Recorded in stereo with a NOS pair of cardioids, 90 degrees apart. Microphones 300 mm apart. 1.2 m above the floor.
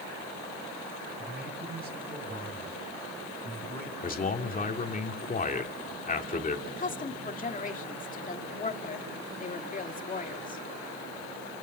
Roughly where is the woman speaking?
Ahead left.